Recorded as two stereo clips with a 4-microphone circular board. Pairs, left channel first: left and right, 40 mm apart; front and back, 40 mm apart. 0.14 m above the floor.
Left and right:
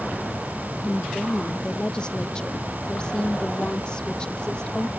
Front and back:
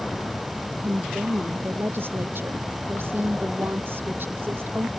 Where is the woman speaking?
160° left.